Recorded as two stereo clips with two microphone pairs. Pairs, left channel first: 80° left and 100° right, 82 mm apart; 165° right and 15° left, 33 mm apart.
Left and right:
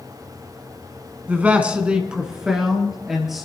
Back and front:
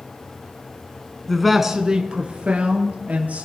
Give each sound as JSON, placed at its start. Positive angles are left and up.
{"t": 1.3, "sound": "a man speaking", "azimuth_deg": -105, "distance_m": 1.2}